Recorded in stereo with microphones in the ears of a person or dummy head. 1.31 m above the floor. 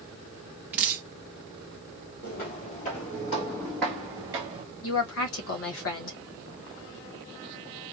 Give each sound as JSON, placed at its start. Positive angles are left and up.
{"t": 0.7, "sound": "dripping", "side_deg": -10, "distance_m": 0.7}
{"t": 2.2, "sound": "footsteps", "side_deg": 45, "distance_m": 2.0}
{"t": 4.8, "sound": "a woman speaking", "side_deg": 70, "distance_m": 1.5}